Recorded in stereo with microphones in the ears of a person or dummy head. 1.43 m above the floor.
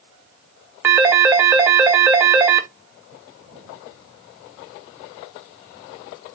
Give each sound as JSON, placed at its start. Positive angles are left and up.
{"t": 0.8, "sound": "a phone ringing", "side_deg": -10, "distance_m": 0.5}